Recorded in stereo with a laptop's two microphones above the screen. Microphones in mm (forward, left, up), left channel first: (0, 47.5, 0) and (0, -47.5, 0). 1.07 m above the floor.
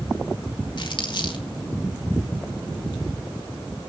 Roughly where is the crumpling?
Left.